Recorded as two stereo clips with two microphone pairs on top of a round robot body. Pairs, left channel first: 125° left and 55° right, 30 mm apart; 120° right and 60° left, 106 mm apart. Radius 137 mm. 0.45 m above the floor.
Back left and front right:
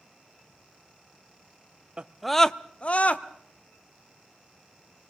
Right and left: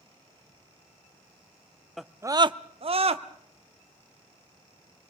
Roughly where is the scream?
Ahead right.